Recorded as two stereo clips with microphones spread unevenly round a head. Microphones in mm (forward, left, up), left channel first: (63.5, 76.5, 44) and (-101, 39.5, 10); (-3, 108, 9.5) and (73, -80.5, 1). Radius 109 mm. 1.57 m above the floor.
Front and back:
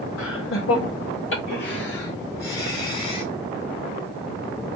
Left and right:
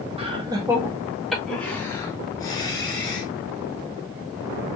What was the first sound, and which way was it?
Laughter, 5° right.